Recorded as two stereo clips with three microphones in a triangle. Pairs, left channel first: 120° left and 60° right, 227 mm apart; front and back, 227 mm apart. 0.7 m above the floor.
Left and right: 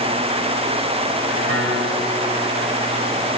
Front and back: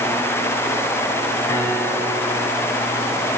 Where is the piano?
75° right, 3.5 m.